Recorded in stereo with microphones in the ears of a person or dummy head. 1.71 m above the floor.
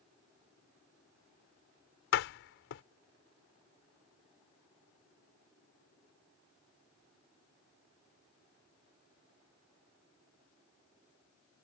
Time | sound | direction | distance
2.1 | a door slam | 60° left (ahead or behind) | ?